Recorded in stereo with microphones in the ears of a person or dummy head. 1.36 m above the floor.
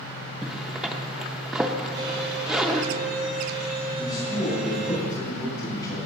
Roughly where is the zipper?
Centre.